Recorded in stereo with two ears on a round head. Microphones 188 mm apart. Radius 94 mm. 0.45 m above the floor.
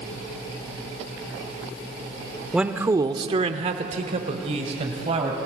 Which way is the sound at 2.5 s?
5° right (ahead or behind).